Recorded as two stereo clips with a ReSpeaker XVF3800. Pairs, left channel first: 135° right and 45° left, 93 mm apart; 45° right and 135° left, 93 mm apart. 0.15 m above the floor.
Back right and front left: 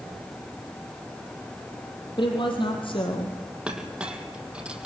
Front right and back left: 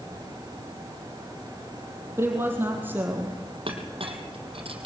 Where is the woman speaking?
160° right, 4.5 m; by 3.4 s 155° right, 4 m.